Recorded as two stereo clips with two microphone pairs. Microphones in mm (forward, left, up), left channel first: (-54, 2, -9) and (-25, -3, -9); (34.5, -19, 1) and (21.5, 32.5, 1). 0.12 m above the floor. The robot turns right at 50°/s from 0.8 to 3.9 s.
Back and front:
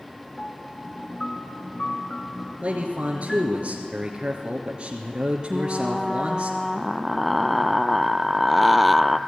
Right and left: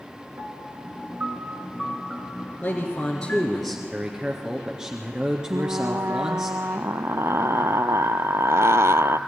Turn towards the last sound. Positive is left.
turn(degrees=85)